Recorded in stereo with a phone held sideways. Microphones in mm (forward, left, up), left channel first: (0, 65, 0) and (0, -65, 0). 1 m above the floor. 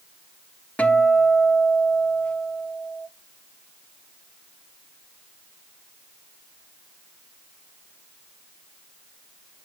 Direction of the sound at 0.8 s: 10° left (ahead or behind).